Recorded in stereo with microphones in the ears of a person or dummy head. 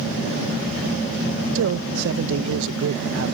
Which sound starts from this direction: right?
A man speaking, at 1.6 s.